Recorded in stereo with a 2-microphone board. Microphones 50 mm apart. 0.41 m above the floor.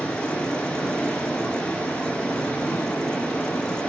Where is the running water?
20° left (ahead or behind), 2 m.